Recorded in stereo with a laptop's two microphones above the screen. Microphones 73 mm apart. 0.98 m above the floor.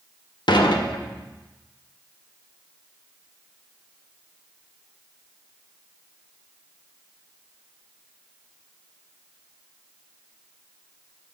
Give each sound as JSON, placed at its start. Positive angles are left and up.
{"t": 0.5, "sound": "dishes clattering", "side_deg": 75, "distance_m": 0.6}